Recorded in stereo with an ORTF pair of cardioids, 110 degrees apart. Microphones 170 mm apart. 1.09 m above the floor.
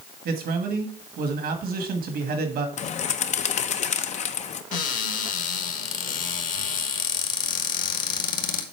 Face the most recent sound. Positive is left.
turn(degrees=55)